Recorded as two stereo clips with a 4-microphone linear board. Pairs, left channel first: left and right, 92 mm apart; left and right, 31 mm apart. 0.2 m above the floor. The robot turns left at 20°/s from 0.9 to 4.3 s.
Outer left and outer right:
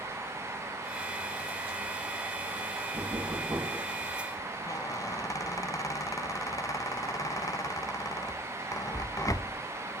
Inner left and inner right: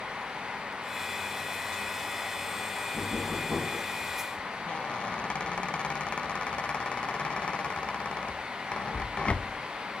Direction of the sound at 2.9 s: 45° right (ahead or behind).